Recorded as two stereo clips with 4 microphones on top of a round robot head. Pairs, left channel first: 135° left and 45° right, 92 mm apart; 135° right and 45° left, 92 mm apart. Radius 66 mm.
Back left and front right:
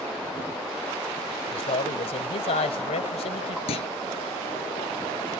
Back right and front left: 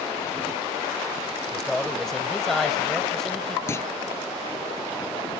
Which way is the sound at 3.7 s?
160° left.